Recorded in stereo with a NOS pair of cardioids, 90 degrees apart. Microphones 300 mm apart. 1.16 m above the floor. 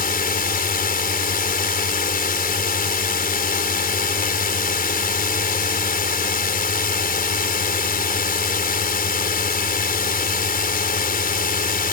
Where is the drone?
30° left.